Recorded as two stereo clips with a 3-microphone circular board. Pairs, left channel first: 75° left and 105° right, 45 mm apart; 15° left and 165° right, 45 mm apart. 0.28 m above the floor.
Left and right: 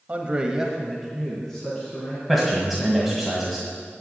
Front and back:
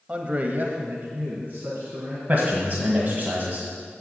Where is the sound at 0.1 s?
125° right, 1.0 m; by 2.2 s 150° left, 2.5 m.